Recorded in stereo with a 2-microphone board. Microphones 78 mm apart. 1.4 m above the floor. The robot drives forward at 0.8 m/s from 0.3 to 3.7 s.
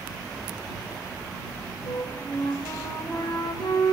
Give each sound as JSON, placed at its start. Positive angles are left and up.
{"t": 1.9, "sound": "a flute", "side_deg": 80, "distance_m": 4.5}